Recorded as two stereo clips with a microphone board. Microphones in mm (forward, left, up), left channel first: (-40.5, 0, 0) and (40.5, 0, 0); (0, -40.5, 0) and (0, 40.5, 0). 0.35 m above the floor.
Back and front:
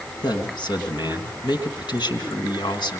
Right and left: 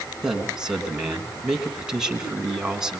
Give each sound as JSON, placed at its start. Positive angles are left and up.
{"t": 0.2, "sound": "a man speaking", "azimuth_deg": 170, "distance_m": 3.5}